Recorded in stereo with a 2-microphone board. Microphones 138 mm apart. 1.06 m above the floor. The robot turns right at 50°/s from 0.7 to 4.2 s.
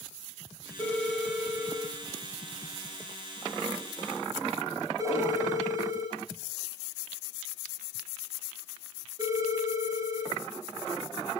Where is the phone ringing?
25° left (ahead or behind), 5.5 m; by 10.3 s 35° right (ahead or behind), 5.5 m.